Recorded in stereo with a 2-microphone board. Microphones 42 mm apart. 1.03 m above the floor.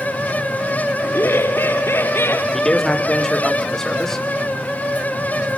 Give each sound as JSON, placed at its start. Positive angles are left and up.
{"t": 1.0, "sound": "laughter", "side_deg": 70, "distance_m": 2.5}
{"t": 2.5, "sound": "a man speaking", "side_deg": 10, "distance_m": 3.0}